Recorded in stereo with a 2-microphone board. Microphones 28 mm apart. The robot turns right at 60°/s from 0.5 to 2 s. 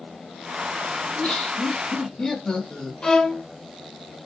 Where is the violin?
30° left (ahead or behind), 0.7 m.